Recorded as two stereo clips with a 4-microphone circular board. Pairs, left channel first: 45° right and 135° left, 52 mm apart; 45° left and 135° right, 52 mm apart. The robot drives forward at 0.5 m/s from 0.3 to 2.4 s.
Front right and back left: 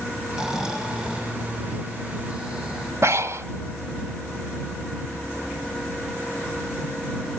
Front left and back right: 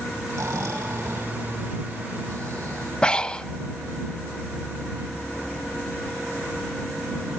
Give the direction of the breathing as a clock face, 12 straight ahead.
8 o'clock.